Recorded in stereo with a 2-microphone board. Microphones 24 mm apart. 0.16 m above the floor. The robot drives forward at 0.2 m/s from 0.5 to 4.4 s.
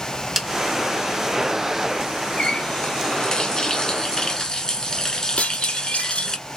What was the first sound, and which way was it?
A snare drum, 15° right (ahead or behind).